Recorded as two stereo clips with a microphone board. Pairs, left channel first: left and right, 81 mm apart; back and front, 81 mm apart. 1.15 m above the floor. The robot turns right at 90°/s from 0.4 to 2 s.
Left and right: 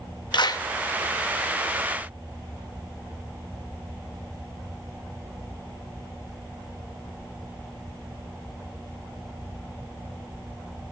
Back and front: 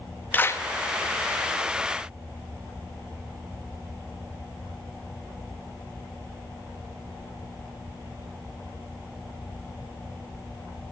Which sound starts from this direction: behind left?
A clap, at 0.3 s.